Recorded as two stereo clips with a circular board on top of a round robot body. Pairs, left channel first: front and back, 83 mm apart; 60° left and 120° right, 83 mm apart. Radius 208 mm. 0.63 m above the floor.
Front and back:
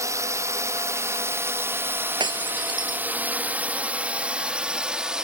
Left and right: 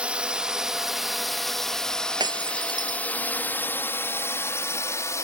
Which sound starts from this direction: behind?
A drone, at 0.0 s.